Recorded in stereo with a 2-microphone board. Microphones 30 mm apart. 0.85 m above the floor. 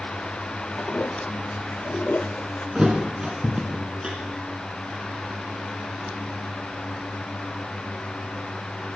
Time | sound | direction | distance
0.8 | a toilet flushing | 60° left (ahead or behind) | 0.5 m
2.8 | a thud | 25° right (ahead or behind) | 1.9 m